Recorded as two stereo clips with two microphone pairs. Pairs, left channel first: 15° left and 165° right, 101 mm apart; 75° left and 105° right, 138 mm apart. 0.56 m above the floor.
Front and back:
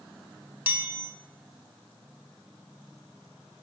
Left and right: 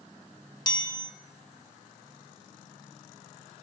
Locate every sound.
0.7 s a chime: 125° left, 0.7 m